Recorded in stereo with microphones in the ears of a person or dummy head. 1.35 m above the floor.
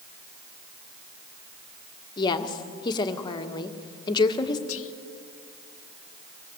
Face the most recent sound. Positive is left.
turn(degrees=65)  # may be behind; listen again after turning